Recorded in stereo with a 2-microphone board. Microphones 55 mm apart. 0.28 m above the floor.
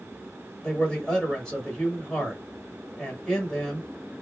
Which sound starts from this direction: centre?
A man speaking, at 0.6 s.